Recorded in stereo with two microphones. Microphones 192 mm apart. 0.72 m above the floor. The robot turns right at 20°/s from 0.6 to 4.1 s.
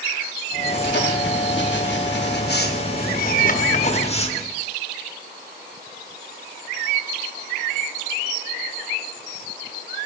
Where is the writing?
75° left, 0.9 m; by 4.6 s 145° left, 0.9 m.